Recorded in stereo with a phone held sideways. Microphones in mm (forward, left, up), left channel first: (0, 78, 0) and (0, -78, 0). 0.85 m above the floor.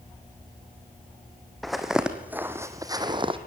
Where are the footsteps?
Centre (ahead or behind), 2.5 m; by 3.4 s 35° right (ahead or behind), 1.8 m.